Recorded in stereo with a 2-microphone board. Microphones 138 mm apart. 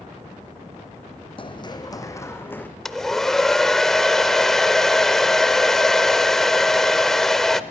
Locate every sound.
1.4 s running footsteps: 40° left (ahead or behind), 1.4 m; by 2.7 s 10° left (ahead or behind), 1.8 m
2.9 s a hair dryer: 5° left (ahead or behind), 0.7 m